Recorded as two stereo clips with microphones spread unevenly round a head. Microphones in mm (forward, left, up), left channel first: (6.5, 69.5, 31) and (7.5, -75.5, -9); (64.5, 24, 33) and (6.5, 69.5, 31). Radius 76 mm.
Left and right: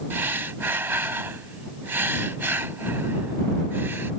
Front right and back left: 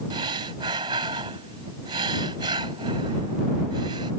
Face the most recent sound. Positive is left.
turn(degrees=-170)